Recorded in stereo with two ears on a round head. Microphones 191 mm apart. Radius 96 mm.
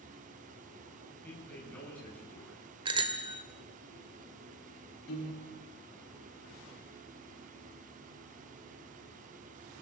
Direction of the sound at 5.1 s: 55° left (ahead or behind).